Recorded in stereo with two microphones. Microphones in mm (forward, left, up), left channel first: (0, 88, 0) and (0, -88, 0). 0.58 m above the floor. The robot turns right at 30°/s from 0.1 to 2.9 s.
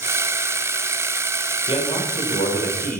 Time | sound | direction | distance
1.7 | a man speaking | 35° left | 2.5 m